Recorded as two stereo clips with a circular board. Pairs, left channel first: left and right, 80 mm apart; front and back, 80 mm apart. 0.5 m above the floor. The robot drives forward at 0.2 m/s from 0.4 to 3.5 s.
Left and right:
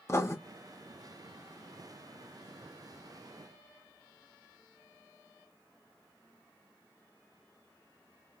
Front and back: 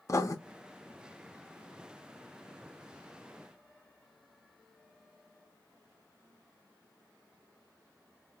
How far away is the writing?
About 0.6 m.